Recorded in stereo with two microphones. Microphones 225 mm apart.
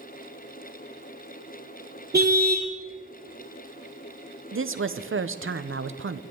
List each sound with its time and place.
2.1 s a car horn: 45° right (ahead or behind), 2.5 m
4.5 s a woman speaking: 65° right (ahead or behind), 0.9 m